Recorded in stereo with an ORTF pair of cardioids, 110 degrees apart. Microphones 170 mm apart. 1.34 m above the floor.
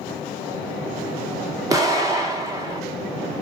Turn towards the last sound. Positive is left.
turn(degrees=-20)